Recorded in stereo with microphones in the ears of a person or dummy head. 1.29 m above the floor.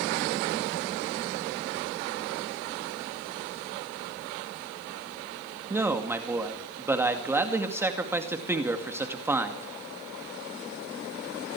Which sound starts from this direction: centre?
A man speaking, at 5.7 s.